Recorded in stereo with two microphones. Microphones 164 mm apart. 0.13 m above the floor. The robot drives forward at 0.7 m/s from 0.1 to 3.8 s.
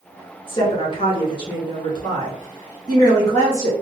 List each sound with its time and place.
0.5 s a woman speaking: 35° left (ahead or behind), 1.8 m; by 3.7 s 20° left (ahead or behind), 2.5 m